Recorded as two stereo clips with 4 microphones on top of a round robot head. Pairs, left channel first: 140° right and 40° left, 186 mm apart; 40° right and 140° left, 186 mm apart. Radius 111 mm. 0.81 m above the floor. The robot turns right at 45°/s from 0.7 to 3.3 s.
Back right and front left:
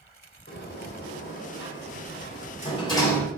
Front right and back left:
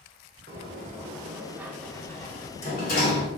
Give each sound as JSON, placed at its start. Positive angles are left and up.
{"t": 0.5, "sound": "a sliding door", "azimuth_deg": -175, "distance_m": 4.0}